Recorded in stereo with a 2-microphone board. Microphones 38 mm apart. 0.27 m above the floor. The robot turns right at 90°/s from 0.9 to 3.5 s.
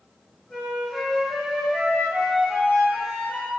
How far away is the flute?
About 1.5 m.